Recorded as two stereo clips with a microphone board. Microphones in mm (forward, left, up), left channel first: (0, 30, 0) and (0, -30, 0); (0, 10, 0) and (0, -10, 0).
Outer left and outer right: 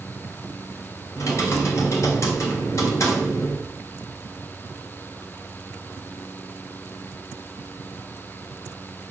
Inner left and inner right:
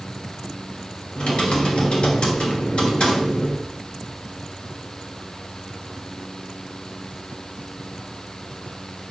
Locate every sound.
1.2 s typing on a keyboard: 55° left (ahead or behind), 2.5 m